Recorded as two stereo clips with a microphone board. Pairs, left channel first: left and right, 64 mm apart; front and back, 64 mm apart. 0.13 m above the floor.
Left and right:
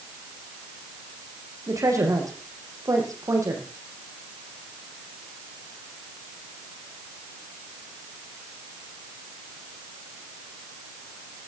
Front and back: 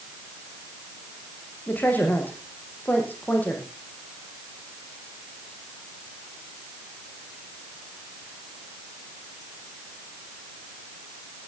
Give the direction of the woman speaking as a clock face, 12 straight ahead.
2 o'clock.